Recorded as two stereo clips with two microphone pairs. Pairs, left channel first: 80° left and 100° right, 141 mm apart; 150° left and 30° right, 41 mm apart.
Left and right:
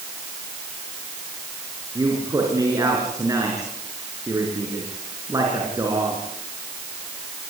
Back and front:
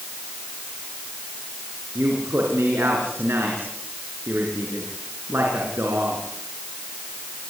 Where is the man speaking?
35° right, 5 m.